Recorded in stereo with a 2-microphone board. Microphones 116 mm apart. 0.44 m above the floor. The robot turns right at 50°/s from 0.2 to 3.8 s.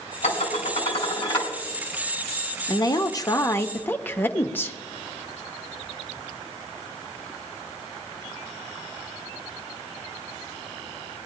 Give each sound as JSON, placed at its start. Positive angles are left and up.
{"t": 0.2, "sound": "dishes clattering", "azimuth_deg": 80, "distance_m": 3.5}
{"t": 2.7, "sound": "a woman speaking", "azimuth_deg": 90, "distance_m": 0.8}